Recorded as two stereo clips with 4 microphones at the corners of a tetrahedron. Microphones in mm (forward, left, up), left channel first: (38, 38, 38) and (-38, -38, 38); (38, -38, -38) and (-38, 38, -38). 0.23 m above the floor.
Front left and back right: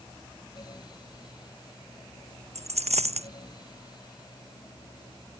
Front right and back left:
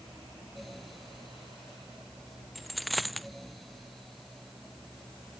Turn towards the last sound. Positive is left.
turn(degrees=-135)